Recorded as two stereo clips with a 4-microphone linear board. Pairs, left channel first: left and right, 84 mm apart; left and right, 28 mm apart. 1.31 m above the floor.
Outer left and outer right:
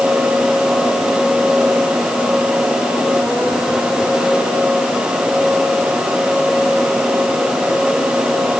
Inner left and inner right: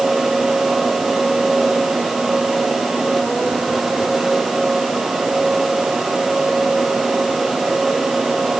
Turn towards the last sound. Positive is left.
No sound to turn to.